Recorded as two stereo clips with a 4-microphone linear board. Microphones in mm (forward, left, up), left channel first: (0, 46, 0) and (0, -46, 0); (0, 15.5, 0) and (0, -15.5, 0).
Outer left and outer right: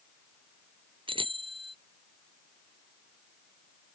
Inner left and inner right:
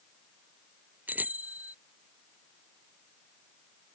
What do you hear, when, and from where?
1.1 s a bicycle bell: 65° right (ahead or behind)